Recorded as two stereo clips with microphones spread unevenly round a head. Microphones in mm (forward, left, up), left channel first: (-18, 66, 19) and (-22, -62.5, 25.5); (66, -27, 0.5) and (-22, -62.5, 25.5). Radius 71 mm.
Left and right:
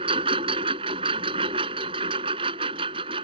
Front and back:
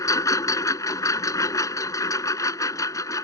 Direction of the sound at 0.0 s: 35° right.